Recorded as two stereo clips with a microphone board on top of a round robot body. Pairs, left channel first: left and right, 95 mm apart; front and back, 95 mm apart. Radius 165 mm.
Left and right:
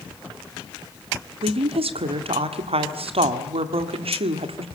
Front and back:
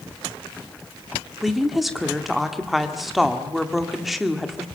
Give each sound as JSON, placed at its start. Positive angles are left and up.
{"t": 1.4, "sound": "a woman speaking", "azimuth_deg": -90, "distance_m": 1.9}